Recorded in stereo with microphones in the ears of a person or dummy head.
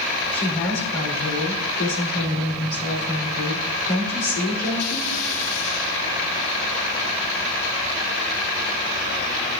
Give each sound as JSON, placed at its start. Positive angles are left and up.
{"t": 0.3, "sound": "a woman speaking", "side_deg": 80, "distance_m": 3.5}